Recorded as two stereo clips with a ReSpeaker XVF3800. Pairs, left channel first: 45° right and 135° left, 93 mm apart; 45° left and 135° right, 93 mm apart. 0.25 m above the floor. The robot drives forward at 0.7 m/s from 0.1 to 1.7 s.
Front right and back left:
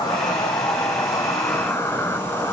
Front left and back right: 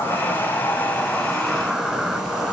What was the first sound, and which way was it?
An insect, 20° right.